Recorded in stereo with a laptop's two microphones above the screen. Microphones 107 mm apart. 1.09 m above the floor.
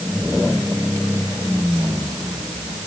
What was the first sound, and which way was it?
Only background noise.